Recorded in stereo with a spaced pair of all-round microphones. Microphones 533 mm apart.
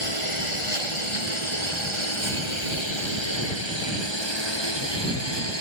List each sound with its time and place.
0.0 s a lawn mower: 70° left (ahead or behind); by 5.6 s 50° left (ahead or behind)